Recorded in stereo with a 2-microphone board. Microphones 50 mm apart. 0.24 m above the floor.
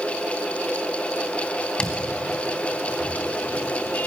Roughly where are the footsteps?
Left.